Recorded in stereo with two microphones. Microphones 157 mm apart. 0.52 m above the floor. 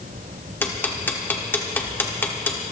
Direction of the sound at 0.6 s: 10° left (ahead or behind).